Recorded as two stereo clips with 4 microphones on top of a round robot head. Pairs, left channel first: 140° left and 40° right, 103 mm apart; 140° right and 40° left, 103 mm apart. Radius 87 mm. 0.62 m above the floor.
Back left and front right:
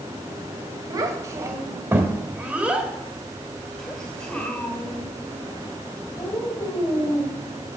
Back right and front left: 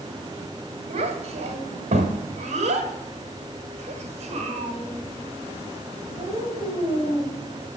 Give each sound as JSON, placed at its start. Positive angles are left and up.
{"t": 0.9, "sound": "a child speaking", "azimuth_deg": 15, "distance_m": 2.5}